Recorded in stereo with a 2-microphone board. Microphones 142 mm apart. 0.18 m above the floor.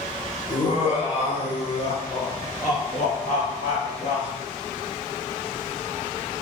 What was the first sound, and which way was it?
Laughter, 45° left (ahead or behind).